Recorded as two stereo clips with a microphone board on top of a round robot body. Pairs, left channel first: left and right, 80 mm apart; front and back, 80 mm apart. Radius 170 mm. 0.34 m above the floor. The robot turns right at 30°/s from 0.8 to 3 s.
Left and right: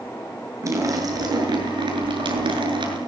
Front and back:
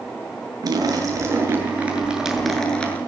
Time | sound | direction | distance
0.6 | a splash | 140° right | 7.5 m